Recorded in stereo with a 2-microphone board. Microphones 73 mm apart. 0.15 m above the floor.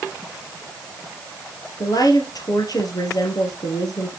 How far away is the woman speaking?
About 3 m.